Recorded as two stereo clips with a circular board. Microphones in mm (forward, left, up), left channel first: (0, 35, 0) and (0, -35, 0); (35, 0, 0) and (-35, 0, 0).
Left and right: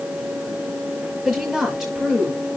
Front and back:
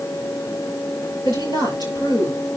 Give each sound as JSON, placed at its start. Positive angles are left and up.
{"t": 1.2, "sound": "a woman speaking", "azimuth_deg": 0, "distance_m": 9.0}